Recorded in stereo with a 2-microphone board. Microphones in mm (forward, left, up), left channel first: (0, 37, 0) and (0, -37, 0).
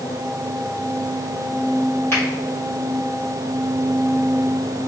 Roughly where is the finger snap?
Left.